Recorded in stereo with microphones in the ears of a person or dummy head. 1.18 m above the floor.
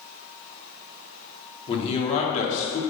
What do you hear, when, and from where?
1.7 s a man speaking: 30° left (ahead or behind), 2.5 m; by 2.8 s 45° left (ahead or behind), 2.5 m